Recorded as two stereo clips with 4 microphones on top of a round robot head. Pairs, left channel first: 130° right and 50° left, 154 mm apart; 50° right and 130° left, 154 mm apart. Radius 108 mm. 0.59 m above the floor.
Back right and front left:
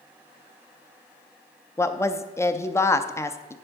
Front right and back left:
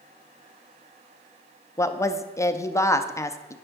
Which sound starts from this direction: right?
A woman speaking, at 1.8 s.